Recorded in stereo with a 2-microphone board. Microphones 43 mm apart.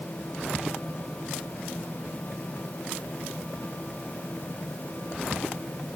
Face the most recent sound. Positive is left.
No sound to turn to.